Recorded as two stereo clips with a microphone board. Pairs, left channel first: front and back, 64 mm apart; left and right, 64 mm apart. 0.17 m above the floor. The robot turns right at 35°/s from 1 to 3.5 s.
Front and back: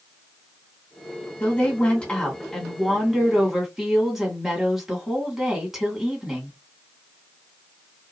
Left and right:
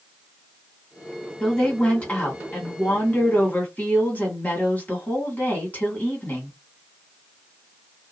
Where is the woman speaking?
30° left, 1.6 m; by 6.6 s 100° left, 1.6 m.